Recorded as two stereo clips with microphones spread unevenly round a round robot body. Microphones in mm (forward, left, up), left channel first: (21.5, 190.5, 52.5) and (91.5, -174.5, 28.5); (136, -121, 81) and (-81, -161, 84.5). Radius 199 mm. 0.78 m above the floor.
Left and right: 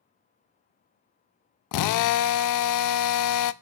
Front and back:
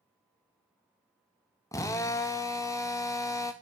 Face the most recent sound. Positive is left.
turn(degrees=80)